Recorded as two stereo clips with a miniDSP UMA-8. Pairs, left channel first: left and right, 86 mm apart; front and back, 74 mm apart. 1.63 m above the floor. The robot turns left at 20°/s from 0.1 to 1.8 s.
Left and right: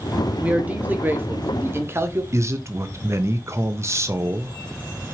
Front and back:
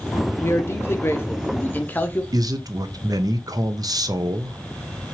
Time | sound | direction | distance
0.4 | a man speaking | 25° right | 0.6 m
2.3 | a man speaking | 145° right | 0.5 m